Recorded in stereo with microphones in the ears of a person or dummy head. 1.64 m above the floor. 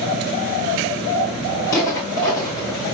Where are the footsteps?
20° left (ahead or behind), 4 m.